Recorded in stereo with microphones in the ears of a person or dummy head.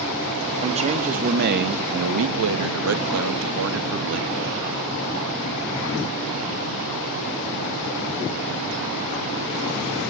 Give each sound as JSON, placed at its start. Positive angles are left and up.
{"t": 0.6, "sound": "a man speaking", "side_deg": -30, "distance_m": 2.5}